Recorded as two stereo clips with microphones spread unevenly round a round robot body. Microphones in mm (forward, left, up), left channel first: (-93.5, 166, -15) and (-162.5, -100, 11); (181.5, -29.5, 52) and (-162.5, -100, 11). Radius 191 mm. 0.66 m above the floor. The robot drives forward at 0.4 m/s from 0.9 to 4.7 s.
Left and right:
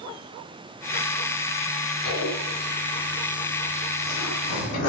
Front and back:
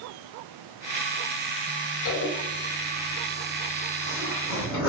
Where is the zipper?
45° left, 2 m; by 4.9 s 80° left, 1.7 m.